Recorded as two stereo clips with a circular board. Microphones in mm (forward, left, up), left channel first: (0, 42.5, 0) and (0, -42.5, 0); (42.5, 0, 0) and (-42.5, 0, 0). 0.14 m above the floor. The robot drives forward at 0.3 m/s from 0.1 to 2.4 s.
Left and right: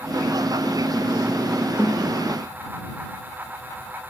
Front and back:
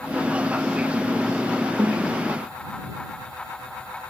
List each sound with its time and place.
1.8 s a snare drum: 150° right, 4.5 m